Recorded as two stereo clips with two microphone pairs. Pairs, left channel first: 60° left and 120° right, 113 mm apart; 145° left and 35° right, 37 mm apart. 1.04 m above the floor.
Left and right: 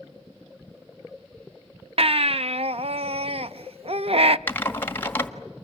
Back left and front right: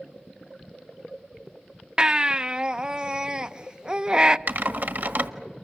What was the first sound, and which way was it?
A baby crying, 100° right.